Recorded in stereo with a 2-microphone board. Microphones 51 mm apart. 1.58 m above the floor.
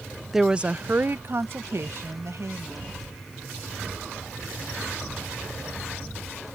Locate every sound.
0.3 s a woman speaking: 5° right (ahead or behind); by 3.0 s 70° right (ahead or behind)